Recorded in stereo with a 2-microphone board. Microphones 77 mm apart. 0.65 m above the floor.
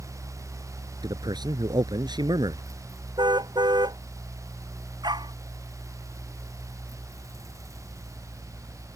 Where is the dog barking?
75° right (ahead or behind).